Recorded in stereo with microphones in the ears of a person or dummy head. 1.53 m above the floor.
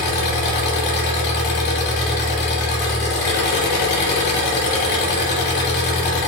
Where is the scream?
No scream in this recording.